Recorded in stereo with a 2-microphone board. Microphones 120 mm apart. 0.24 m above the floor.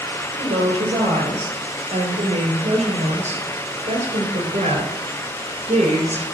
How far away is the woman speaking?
About 5.5 m.